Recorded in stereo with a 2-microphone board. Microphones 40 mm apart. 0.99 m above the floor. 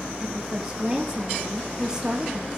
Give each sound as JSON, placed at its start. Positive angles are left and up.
{"t": 0.2, "sound": "a woman speaking", "side_deg": -20, "distance_m": 2.5}